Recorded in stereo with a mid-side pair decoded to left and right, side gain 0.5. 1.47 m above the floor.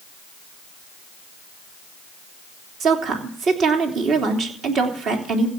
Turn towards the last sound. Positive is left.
turn(degrees=-60)